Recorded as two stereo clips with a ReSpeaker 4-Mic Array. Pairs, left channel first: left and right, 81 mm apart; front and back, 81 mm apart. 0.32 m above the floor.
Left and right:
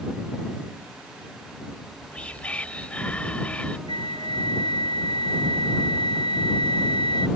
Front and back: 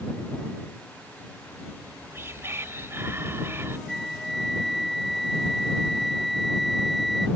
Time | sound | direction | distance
1.7 | whispering | 155° left | ?
3.9 | a flute | 90° left | ?